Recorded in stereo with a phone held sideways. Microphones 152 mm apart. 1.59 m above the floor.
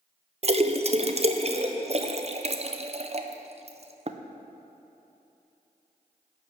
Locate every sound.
0.4 s a splash: 40° right (ahead or behind), 0.5 m